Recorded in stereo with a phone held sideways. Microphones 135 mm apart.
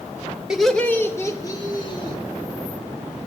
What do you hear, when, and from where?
0.5 s laughter: 5° right (ahead or behind), 1.5 m; by 2.2 s 40° left (ahead or behind), 3 m